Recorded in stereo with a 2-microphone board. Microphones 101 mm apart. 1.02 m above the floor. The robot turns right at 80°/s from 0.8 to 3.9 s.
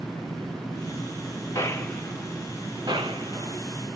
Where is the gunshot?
35° left (ahead or behind), 1.0 m; by 3.6 s 50° right (ahead or behind), 1.0 m.